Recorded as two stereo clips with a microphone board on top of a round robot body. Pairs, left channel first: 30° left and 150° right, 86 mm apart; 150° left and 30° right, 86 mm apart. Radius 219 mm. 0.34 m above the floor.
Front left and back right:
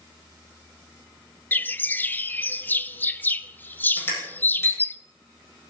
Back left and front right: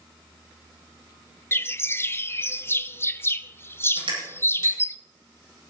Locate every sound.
1.5 s a bird: 95° left, 0.7 m
4.0 s crushing: 35° right, 7 m